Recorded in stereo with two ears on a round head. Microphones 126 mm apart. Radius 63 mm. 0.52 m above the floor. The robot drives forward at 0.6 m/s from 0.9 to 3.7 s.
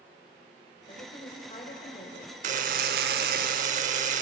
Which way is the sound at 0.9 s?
40° left (ahead or behind).